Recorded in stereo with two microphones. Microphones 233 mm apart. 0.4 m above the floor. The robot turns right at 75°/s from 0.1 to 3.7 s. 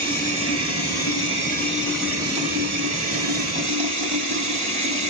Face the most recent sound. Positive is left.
turn(degrees=-55)